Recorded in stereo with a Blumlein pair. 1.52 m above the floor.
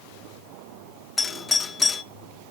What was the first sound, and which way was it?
A doorbell, 15° left.